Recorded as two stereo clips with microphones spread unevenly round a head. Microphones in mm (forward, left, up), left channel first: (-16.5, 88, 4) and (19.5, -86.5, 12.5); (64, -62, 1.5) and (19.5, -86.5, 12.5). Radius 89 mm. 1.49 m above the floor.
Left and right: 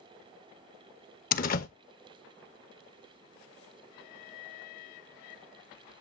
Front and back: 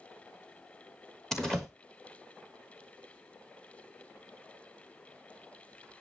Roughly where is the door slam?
Behind left.